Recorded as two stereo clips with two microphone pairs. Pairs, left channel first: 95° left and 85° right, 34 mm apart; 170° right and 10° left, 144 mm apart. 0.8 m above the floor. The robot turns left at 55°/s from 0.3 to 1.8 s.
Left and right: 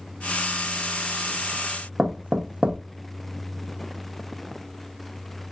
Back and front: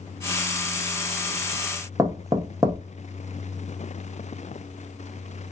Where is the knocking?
50° right, 0.6 m.